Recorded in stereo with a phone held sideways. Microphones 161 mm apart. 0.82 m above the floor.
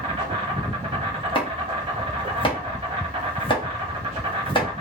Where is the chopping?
35° left (ahead or behind), 0.8 m.